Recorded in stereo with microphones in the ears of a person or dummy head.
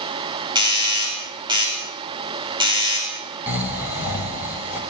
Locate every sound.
0.6 s a doorbell: 30° right (ahead or behind), 5 m
3.5 s snoring: 15° right (ahead or behind), 3.5 m